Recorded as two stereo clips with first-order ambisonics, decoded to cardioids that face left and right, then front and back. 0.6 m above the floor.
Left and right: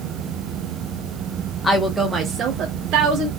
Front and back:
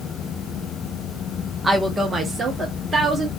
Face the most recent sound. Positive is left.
turn(degrees=-105)